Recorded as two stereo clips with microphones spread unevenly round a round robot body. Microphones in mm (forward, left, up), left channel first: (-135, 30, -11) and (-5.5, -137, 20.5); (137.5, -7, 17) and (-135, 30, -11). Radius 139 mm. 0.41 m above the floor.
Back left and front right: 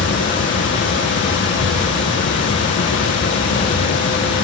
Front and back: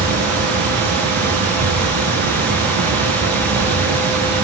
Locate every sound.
0.0 s running water: 155° left, 7 m